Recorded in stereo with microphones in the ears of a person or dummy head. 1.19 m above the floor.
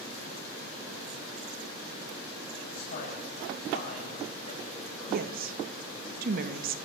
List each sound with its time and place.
2.7 s a man speaking: 45° left (ahead or behind), 8.5 m; by 6.1 s 25° left (ahead or behind), 7 m
5.1 s a woman speaking: 55° right (ahead or behind), 1.8 m